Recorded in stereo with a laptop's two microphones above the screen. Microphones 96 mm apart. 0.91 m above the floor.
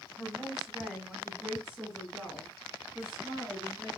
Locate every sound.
0.2 s a woman speaking: 5° right (ahead or behind), 5.5 m; by 3.9 s 10° right (ahead or behind), 10.5 m